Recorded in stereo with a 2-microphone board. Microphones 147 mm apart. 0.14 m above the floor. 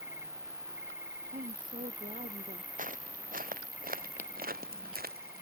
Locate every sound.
0.0 s an insect: 55° left (ahead or behind)
1.3 s a woman speaking: 65° right (ahead or behind)
2.8 s footsteps: 60° right (ahead or behind); by 5.4 s 75° right (ahead or behind)